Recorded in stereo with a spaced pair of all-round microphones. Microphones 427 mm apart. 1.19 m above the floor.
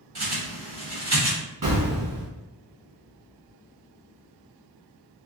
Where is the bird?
60° right (ahead or behind), 1.7 m.